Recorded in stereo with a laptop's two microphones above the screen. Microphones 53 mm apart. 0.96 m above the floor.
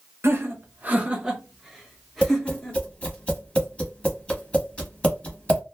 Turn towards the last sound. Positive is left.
turn(degrees=20)  # may be behind; listen again after turning